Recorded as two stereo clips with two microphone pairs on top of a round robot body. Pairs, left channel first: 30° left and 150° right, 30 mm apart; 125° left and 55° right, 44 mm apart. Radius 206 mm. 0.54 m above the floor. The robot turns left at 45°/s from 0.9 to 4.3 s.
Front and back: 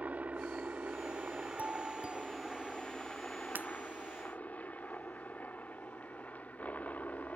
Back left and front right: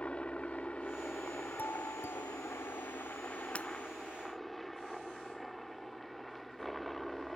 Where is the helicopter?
170° right; by 7.4 s 40° left.